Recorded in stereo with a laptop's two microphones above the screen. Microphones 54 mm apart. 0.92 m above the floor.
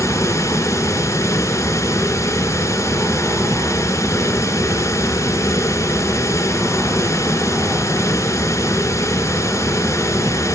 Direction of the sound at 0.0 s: 60° left (ahead or behind).